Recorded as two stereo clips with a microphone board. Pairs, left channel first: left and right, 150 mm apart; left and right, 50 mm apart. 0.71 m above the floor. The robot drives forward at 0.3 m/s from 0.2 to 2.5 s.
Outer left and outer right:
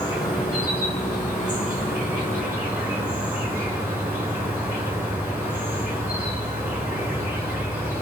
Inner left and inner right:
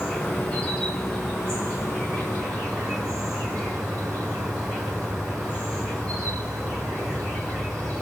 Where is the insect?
25° left (ahead or behind), 1.1 m; by 8.0 s 15° left (ahead or behind), 1.8 m.